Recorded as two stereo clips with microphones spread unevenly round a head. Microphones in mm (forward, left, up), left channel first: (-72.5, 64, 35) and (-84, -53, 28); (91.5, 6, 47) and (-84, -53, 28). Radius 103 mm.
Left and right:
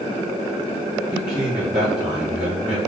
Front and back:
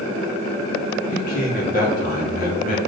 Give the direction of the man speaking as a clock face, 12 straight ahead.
1 o'clock.